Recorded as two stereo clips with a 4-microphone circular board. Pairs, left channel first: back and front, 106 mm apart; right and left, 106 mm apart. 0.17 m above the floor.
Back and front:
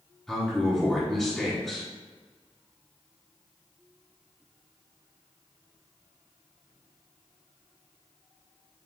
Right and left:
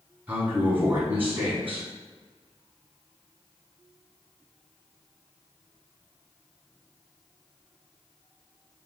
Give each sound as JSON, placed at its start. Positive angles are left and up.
{"t": 0.3, "sound": "a man speaking", "azimuth_deg": 105, "distance_m": 1.0}